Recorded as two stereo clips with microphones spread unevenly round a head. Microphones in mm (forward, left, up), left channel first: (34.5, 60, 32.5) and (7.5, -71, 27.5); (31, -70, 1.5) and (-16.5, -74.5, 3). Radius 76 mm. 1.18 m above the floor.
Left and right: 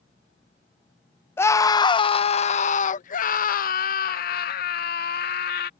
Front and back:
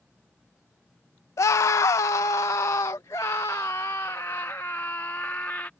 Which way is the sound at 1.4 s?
5° left.